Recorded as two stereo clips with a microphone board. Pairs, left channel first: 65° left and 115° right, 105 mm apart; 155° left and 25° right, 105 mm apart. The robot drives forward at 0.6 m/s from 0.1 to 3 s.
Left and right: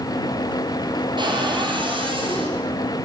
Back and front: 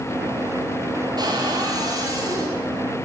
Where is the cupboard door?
70° right, 6 m; by 2.6 s 80° right, 5.5 m.